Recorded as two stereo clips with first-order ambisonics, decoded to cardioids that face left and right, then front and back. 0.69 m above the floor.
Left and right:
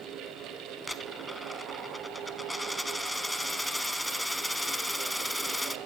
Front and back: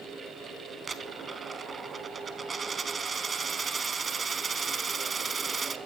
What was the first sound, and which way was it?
A dropped coin, 175° left.